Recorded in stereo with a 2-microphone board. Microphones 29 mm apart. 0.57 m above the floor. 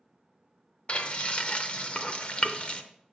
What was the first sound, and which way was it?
Frying, 45° left (ahead or behind).